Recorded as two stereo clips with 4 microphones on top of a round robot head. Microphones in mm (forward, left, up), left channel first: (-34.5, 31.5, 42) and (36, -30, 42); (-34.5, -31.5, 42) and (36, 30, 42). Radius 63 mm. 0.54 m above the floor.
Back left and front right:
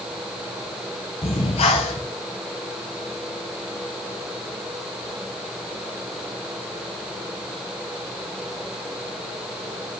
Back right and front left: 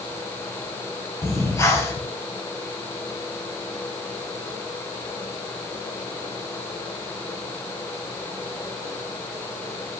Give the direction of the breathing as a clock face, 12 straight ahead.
7 o'clock.